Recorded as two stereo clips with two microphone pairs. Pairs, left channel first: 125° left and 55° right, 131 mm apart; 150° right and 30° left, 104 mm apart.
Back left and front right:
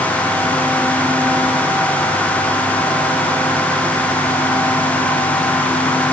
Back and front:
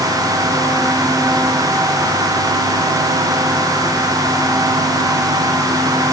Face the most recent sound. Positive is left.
No sound to turn to.